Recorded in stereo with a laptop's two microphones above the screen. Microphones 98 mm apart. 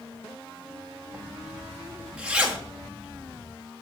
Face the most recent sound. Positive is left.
turn(degrees=-10)  # may be behind; listen again after turning